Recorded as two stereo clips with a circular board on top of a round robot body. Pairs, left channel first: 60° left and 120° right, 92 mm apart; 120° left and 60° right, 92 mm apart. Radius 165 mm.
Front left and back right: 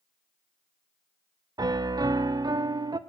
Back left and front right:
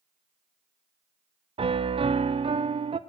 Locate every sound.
1.6 s a piano: 75° right, 0.5 m